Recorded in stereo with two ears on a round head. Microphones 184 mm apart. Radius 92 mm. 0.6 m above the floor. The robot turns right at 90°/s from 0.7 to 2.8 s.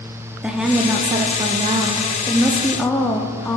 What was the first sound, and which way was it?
A woman speaking, 5° right (ahead or behind).